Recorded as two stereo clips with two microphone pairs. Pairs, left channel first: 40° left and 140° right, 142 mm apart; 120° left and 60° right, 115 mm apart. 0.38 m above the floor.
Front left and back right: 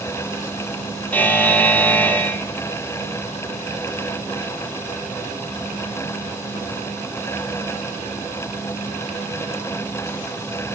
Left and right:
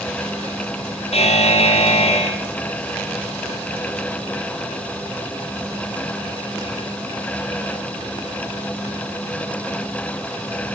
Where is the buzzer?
115° left, 2.5 m.